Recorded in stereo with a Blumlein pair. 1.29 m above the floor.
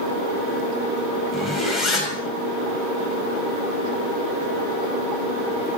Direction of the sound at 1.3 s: Straight ahead.